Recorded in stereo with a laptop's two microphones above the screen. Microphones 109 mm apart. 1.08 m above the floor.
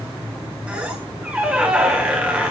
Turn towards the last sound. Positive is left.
turn(degrees=-10)  # may be behind; listen again after turning